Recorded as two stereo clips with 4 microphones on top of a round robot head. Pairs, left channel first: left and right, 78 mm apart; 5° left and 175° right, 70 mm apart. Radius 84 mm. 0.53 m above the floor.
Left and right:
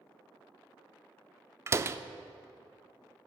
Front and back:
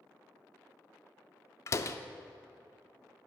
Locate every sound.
1.7 s a door slam: 40° right, 0.5 m